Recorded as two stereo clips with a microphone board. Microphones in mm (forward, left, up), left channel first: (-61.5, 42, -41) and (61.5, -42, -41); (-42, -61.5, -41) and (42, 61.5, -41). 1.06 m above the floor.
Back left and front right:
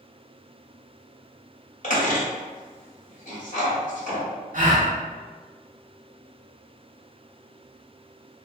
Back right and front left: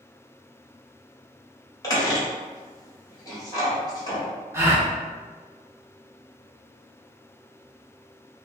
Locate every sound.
1.8 s a squeak: 170° left, 1.6 m
4.5 s a gasp: 15° right, 0.9 m